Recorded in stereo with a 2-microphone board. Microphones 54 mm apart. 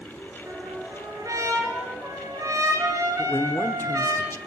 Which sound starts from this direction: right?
A trumpet, at 0.5 s.